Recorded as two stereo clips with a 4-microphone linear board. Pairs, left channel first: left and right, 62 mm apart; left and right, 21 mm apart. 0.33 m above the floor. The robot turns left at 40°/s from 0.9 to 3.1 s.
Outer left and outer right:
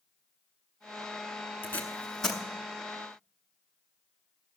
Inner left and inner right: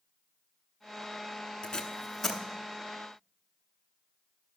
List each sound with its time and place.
1.6 s tape being pulled: 35° left (ahead or behind), 1.0 m; by 2.4 s 5° left (ahead or behind), 1.0 m